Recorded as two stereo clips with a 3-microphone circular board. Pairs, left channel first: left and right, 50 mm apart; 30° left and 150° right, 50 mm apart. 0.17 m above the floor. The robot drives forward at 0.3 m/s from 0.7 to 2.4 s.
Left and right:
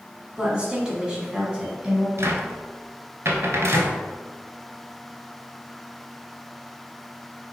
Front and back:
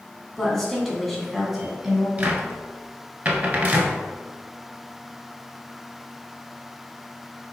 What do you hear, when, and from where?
0.4 s a woman speaking: 45° right, 1.1 m; by 2.1 s 105° right, 1.0 m
2.2 s a cupboard door: 95° right, 0.6 m; by 4.0 s 105° right, 0.6 m